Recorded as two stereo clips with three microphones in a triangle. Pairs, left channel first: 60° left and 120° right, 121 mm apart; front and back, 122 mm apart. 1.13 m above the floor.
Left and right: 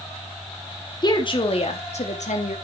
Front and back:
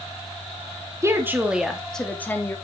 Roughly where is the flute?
No flute in this recording.